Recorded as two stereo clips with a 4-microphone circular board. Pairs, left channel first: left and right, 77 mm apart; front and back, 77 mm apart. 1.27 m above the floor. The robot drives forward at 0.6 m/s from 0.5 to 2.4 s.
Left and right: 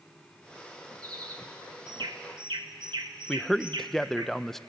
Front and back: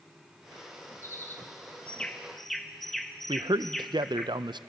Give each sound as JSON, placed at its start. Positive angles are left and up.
{"t": 1.0, "sound": "a bird", "azimuth_deg": -55, "distance_m": 1.5}
{"t": 3.3, "sound": "a man speaking", "azimuth_deg": 175, "distance_m": 0.5}